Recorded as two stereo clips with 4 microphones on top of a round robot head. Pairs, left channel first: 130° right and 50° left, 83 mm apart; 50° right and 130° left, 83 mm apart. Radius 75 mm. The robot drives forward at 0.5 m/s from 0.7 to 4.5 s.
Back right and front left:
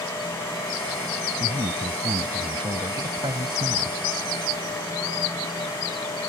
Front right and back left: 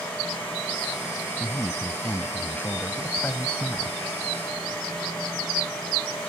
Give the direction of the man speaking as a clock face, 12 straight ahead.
11 o'clock.